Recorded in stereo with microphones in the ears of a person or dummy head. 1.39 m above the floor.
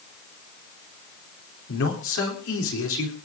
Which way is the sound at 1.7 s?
85° left.